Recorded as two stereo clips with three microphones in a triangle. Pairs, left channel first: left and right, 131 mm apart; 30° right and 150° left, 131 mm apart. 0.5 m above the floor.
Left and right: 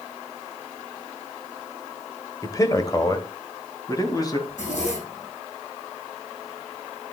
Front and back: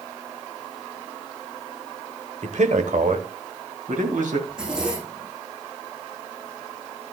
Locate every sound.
2.4 s a man speaking: 150° left, 1.4 m
4.5 s a zipper: 65° left, 7 m